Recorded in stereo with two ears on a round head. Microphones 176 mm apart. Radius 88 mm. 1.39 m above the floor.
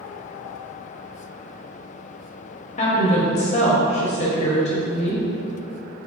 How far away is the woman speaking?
About 0.9 m.